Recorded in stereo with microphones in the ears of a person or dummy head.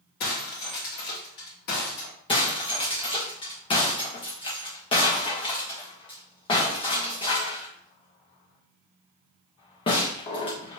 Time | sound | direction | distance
0.2 | breaking glass | 55° left (ahead or behind) | 2.0 m
2.3 | breaking glass | 30° left (ahead or behind) | 1.4 m